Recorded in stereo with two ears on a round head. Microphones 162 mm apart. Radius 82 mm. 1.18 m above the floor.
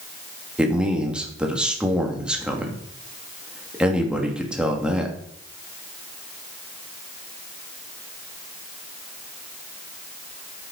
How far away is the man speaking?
About 2.5 m.